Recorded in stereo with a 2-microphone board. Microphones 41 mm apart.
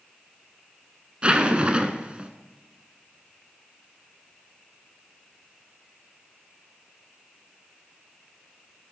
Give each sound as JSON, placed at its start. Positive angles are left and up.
{"t": 1.2, "sound": "a zipper", "side_deg": -30, "distance_m": 0.6}